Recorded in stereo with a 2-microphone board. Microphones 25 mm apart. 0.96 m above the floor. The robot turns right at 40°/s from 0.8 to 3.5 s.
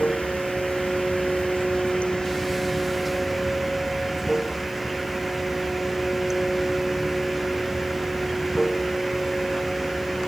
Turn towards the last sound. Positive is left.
turn(degrees=-170)